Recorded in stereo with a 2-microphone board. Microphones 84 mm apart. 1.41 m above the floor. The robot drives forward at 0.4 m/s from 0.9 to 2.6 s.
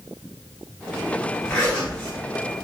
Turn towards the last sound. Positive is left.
turn(degrees=30)  # may be behind; listen again after turning